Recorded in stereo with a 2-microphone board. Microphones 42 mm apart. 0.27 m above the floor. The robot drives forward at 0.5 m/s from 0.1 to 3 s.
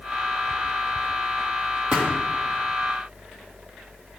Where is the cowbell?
No cowbell in this recording.